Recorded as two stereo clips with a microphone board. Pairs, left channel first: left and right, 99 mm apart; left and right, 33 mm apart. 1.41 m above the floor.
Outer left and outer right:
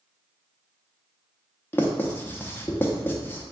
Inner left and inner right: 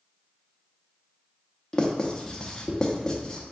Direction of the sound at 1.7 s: 20° left (ahead or behind).